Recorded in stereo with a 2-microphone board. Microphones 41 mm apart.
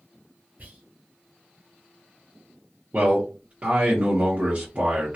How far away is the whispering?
About 1.6 m.